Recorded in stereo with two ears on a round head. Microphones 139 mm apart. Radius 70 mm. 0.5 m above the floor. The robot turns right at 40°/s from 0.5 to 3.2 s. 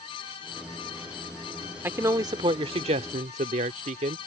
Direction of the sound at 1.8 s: 160° right.